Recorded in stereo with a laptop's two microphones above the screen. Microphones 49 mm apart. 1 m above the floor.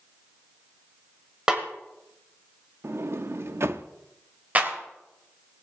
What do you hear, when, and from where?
1.5 s a snare drum: 15° right (ahead or behind), 1.5 m
2.8 s a sliding door: 60° right (ahead or behind), 0.6 m
4.5 s a clap: 35° right (ahead or behind), 3 m